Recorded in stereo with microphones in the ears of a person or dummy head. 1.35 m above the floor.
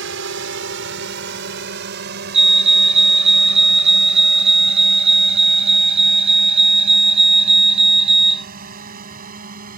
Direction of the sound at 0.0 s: 75° right (ahead or behind).